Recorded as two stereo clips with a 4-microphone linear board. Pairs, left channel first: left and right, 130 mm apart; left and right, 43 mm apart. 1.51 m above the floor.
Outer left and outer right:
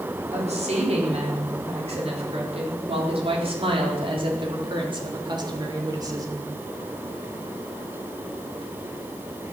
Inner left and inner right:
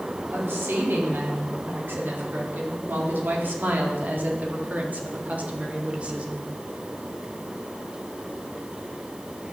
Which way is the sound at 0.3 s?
60° right (ahead or behind).